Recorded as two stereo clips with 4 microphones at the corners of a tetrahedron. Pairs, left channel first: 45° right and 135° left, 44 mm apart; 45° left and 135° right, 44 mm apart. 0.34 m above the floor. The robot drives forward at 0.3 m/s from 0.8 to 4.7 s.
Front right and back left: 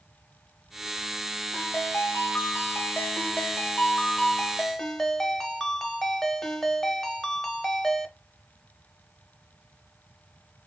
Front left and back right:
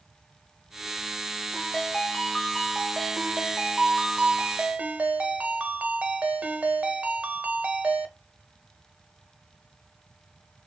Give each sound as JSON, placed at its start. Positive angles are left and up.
{"t": 1.5, "sound": "a ringtone", "azimuth_deg": -30, "distance_m": 1.0}